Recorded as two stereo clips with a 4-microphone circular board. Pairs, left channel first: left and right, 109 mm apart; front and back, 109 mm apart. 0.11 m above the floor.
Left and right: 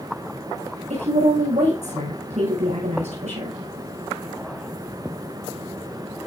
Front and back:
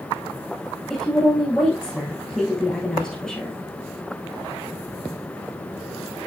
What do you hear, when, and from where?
0.9 s a woman speaking: 80° right, 8.5 m